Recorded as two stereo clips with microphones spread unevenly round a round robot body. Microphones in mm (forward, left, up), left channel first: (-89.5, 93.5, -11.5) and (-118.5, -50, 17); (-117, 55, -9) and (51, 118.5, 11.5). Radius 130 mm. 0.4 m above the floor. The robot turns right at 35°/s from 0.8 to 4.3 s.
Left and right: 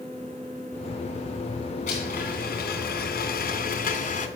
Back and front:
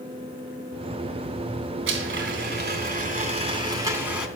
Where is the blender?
25° left, 2.5 m; by 4.3 s 110° left, 2.5 m.